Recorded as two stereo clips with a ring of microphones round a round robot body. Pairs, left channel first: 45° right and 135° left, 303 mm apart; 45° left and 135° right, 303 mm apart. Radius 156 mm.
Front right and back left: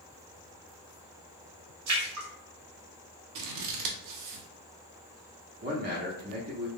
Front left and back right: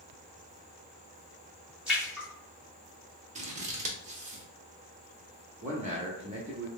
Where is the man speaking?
170° left, 0.9 m.